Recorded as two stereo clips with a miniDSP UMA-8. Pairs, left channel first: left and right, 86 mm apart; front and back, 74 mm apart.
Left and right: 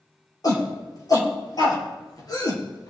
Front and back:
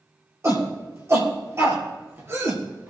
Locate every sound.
0.4 s a shout: 130° left, 4.5 m; by 2.9 s 125° left, 3 m